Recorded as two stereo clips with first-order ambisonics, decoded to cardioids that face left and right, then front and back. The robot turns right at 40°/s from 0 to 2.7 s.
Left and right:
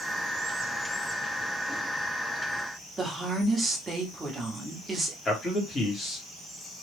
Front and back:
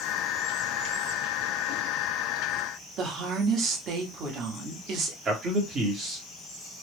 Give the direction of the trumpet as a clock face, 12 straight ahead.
I don't hear a trumpet.